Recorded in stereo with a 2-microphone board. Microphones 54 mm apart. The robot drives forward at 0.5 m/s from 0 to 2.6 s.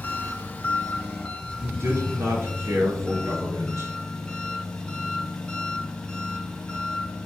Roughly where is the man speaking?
Right.